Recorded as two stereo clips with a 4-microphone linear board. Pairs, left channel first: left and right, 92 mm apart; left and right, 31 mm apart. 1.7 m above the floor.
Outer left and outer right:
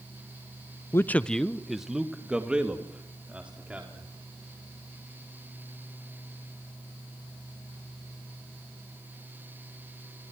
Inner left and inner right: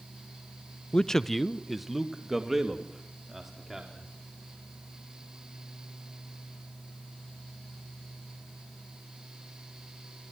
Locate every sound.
0.9 s a man speaking: 30° left (ahead or behind), 0.5 m; by 4.1 s 15° right (ahead or behind), 4.5 m